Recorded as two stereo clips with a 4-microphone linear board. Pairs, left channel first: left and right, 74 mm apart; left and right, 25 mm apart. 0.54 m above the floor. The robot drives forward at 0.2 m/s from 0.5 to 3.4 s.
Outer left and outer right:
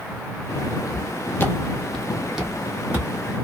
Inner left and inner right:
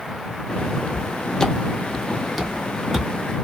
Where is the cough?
I don't hear a cough.